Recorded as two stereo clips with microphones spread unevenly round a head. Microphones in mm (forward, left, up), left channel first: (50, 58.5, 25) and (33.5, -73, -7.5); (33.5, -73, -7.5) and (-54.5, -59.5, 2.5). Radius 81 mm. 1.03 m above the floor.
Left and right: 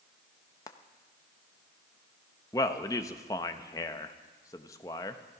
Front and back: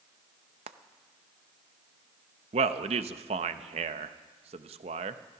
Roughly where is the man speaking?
Behind left.